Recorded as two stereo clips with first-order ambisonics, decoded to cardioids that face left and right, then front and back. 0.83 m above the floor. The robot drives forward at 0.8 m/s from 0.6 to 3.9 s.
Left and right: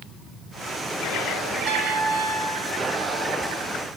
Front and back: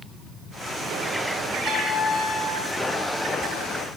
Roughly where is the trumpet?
Ahead right.